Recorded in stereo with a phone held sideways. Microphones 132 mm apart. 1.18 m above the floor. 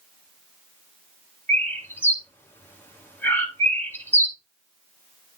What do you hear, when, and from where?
1.5 s a bird: 15° left (ahead or behind), 1.7 m